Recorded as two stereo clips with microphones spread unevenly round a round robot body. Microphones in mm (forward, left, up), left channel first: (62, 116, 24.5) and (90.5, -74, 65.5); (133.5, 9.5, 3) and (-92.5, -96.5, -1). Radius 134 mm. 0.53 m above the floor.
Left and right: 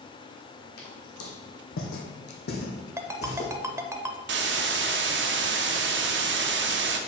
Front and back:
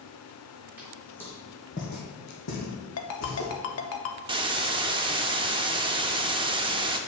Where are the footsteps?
120° left, 1.9 m; by 3.5 s 35° left, 2 m.